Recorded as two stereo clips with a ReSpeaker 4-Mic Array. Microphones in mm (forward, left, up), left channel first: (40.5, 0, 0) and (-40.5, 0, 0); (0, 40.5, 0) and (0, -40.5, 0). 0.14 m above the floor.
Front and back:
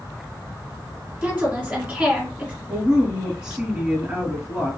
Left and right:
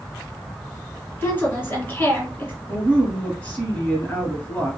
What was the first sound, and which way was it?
A woman speaking, 115° left.